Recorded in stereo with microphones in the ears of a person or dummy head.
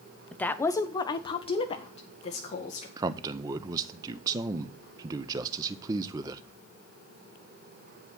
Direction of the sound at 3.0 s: 20° right (ahead or behind).